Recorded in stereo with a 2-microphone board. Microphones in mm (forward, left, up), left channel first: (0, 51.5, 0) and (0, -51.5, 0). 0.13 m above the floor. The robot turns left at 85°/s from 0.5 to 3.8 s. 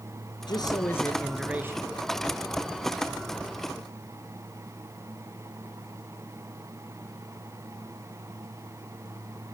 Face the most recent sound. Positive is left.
turn(degrees=150)